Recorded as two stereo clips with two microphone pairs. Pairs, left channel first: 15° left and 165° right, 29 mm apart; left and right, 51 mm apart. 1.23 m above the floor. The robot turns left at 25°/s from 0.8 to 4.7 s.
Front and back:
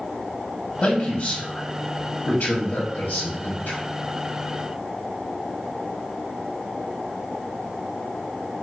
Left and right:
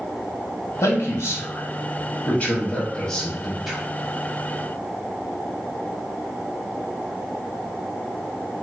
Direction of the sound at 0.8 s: 80° left.